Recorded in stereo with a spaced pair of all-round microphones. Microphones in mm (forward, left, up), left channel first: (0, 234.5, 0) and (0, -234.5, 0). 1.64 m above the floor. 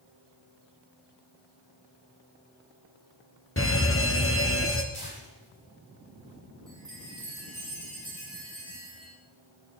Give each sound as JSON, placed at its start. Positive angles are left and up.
{"t": 3.6, "sound": "a fire alarm", "side_deg": 25, "distance_m": 1.2}
{"t": 4.9, "sound": "tearing paper", "side_deg": 50, "distance_m": 8.5}
{"t": 6.7, "sound": "a chime", "side_deg": -10, "distance_m": 7.0}